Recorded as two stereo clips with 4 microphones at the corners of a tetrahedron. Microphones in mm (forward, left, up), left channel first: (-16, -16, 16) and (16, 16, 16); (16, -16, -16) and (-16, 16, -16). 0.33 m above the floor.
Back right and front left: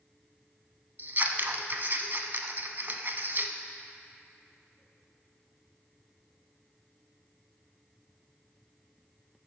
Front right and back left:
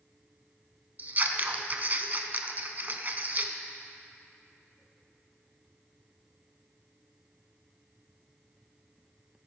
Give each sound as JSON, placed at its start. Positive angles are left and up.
{"t": 1.0, "sound": "scissors", "azimuth_deg": 85, "distance_m": 0.6}